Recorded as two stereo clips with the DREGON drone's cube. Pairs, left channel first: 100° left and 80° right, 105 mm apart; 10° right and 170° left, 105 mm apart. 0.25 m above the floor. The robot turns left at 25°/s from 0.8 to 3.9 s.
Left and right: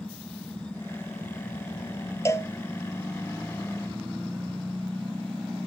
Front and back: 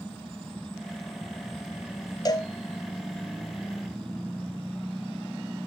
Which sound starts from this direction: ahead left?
A cowbell, at 2.2 s.